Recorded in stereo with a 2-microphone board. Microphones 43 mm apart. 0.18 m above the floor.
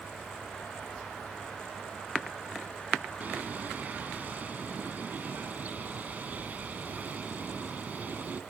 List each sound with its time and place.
3.2 s a bird: 40° right (ahead or behind), 0.9 m